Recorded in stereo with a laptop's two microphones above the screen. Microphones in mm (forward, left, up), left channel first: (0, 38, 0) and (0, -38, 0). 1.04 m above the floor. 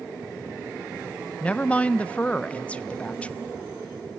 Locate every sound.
1.4 s a woman speaking: 15° left (ahead or behind), 0.5 m